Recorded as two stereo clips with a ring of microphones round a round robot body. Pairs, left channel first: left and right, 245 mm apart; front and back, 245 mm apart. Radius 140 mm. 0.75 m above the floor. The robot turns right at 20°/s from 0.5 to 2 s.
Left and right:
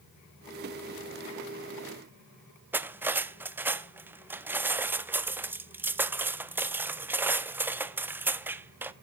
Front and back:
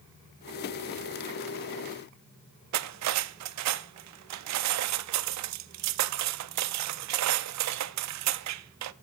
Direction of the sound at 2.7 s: 175° right.